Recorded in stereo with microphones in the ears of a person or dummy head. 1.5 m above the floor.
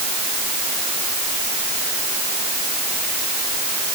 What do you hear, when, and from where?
Only background noise.